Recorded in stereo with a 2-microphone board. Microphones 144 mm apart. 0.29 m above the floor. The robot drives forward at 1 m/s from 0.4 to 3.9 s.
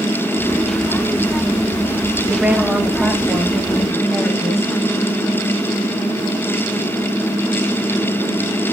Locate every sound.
2.3 s a woman speaking: 5° right (ahead or behind), 1.0 m